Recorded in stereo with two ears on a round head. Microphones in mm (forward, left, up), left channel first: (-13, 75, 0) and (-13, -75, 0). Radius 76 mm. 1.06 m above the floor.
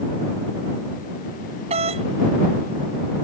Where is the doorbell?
35° right (ahead or behind).